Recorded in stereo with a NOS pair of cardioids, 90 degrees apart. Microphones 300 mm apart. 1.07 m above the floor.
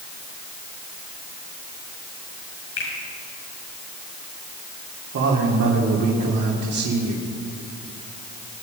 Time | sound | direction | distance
2.8 | a finger snap | 60° left | 7 m
5.1 | a man speaking | 65° right | 3 m